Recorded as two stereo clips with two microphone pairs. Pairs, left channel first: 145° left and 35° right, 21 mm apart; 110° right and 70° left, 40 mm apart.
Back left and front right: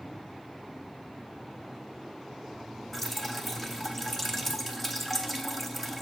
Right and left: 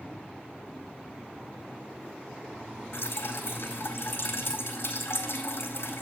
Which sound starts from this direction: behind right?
Dripping, at 2.9 s.